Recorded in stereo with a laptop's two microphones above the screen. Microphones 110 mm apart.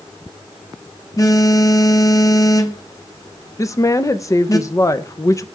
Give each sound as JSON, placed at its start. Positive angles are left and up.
{"t": 1.2, "sound": "a phone buzzing", "side_deg": 35, "distance_m": 0.9}
{"t": 3.6, "sound": "a woman speaking", "side_deg": 30, "distance_m": 0.7}